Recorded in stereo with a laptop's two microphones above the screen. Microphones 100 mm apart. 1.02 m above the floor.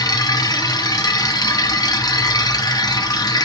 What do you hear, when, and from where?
0.0 s a machine running: 35° left (ahead or behind), 1.0 m